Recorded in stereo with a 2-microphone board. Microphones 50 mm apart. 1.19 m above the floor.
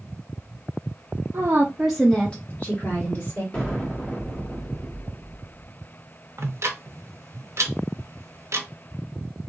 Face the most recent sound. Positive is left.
turn(degrees=-60)  # may be behind; listen again after turning